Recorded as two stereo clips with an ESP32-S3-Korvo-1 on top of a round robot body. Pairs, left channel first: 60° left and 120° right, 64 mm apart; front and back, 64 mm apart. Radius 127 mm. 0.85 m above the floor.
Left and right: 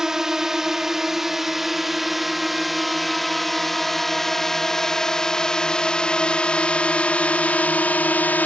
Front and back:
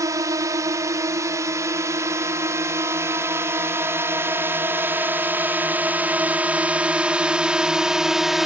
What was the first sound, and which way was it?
A drone, 160° left.